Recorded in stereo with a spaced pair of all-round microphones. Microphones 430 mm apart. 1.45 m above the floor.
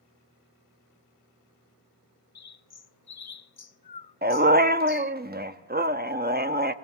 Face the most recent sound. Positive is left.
turn(degrees=-20)  # may be behind; listen again after turning